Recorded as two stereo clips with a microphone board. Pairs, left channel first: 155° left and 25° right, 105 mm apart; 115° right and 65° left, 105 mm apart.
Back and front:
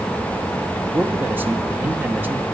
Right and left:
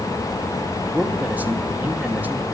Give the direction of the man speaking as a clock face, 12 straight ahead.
11 o'clock.